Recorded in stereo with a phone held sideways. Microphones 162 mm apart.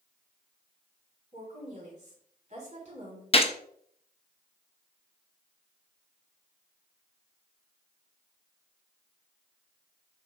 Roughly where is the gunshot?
Left.